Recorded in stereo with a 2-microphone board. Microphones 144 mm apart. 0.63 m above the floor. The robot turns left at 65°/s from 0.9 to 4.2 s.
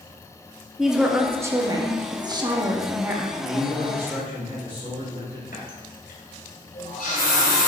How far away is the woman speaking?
About 0.5 m.